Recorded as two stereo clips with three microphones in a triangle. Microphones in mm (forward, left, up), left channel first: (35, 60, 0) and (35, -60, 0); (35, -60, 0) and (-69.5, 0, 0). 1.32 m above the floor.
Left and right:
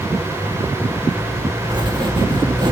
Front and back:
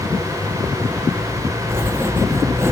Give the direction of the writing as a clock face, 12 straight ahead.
5 o'clock.